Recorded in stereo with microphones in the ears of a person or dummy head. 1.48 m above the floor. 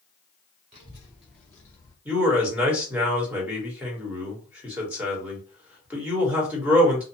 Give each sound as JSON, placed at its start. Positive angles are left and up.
{"t": 0.7, "sound": "a child speaking", "side_deg": -25, "distance_m": 0.6}
{"t": 2.0, "sound": "a man speaking", "side_deg": -10, "distance_m": 1.2}